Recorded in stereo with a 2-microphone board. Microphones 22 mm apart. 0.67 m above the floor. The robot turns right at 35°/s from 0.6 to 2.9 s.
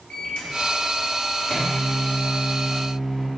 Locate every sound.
0.1 s a microwave: 90° left, 1.2 m; by 3.3 s 170° left, 1.2 m